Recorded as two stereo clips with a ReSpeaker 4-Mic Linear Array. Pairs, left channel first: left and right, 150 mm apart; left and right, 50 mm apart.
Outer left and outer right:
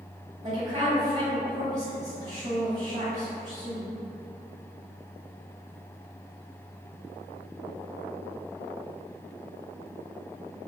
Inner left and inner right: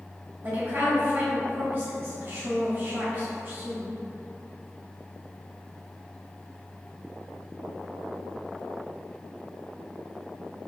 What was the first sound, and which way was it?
A woman speaking, 45° right (ahead or behind).